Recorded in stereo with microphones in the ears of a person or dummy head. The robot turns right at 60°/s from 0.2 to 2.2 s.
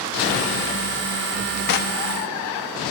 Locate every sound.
1.7 s knocking: 60° left (ahead or behind), 1.9 m; by 2.0 s 45° left (ahead or behind), 1.9 m